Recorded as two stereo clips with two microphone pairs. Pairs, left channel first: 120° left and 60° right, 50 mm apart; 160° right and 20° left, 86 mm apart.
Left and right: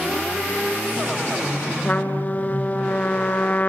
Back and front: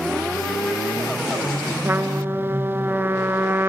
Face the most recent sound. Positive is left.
turn(degrees=75)